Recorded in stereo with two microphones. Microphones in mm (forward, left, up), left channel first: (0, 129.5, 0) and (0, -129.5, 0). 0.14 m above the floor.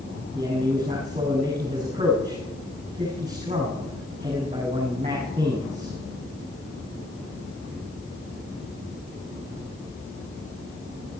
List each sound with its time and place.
0.3 s a man speaking: 25° right (ahead or behind), 8 m